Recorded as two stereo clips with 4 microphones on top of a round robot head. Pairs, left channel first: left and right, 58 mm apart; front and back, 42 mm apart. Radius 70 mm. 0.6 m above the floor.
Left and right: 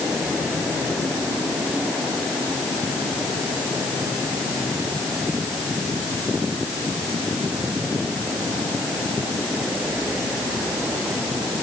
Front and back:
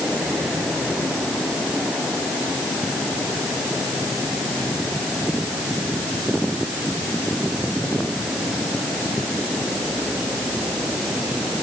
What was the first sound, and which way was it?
Only background noise.